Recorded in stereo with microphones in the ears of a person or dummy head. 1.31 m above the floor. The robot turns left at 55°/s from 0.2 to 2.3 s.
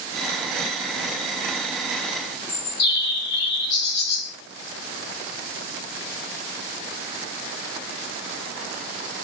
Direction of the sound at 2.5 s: 65° left (ahead or behind).